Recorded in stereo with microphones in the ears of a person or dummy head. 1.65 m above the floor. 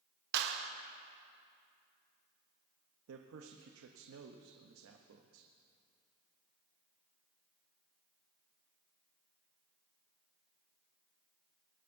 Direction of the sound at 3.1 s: 85° right.